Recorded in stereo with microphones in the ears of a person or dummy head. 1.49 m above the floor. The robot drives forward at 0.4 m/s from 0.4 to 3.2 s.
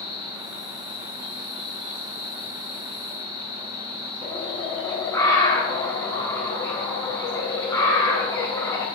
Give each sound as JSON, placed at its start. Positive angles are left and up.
{"t": 0.0, "sound": "an insect", "side_deg": 70, "distance_m": 6.0}
{"t": 4.2, "sound": "a bird", "side_deg": 15, "distance_m": 2.5}